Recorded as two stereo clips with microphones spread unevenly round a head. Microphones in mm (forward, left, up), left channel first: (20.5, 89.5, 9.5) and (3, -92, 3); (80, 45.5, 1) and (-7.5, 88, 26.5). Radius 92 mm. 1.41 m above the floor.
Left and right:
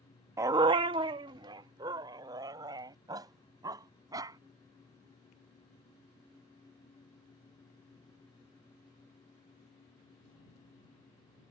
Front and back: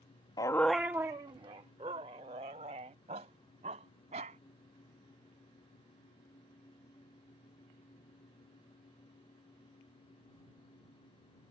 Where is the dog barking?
40° right; by 4.4 s 170° right.